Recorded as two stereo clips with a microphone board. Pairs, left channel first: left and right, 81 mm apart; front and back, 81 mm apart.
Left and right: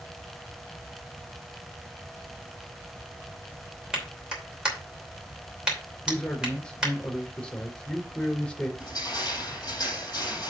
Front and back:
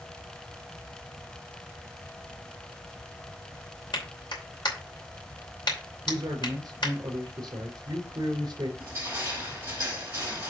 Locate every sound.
3.9 s a clap: 10° right, 2.5 m
6.0 s a man speaking: 165° left, 2.5 m
8.8 s crushing: 125° left, 4 m